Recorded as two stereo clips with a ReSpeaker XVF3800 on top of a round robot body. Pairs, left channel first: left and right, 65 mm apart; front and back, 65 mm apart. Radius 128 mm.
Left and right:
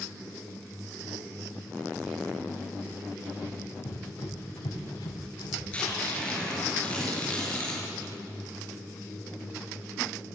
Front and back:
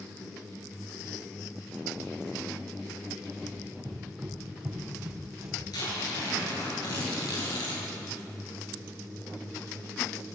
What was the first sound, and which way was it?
Running footsteps, 90° left.